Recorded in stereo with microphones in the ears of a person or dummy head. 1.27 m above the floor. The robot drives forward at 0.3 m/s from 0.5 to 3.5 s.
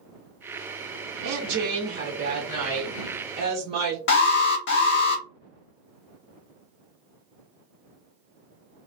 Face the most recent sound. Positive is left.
turn(degrees=60)  # may be behind; listen again after turning